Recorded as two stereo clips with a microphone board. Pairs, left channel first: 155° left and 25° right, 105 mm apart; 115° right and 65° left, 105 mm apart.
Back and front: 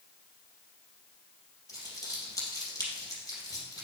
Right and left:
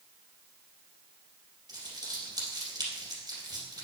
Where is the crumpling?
110° left, 3 m.